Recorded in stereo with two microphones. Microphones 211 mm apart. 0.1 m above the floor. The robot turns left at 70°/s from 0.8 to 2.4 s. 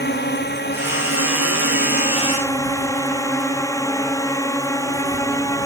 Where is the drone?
125° left; by 5.7 s 15° left.